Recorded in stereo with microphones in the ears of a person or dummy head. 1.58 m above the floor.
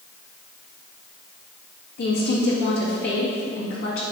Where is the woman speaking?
60° left (ahead or behind), 2 m.